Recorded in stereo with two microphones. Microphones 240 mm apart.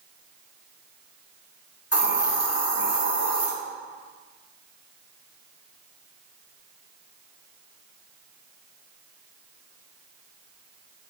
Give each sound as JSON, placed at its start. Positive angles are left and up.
{"t": 1.9, "sound": "a hiss", "side_deg": 80, "distance_m": 2.0}